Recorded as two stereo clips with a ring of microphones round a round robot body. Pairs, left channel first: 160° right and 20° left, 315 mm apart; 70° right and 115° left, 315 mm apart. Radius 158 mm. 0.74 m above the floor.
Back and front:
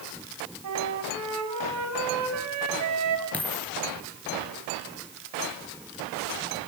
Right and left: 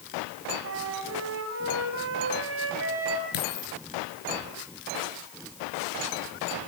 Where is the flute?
65° left, 5 m.